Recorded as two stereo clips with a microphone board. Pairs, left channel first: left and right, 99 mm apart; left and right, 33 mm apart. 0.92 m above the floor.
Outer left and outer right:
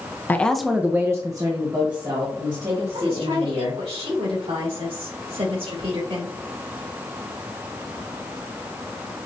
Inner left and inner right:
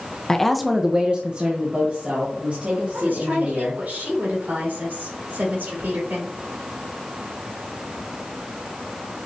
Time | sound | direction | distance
0.3 | a woman speaking | 20° left (ahead or behind) | 0.6 m
2.9 | a woman speaking | 80° right | 3 m